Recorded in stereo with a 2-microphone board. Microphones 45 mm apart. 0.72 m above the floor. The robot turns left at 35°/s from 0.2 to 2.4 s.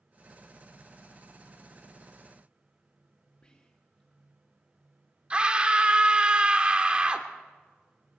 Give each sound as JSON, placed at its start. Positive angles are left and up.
{"t": 3.4, "sound": "whispering", "side_deg": 20, "distance_m": 1.1}
{"t": 5.3, "sound": "a scream", "side_deg": -25, "distance_m": 1.6}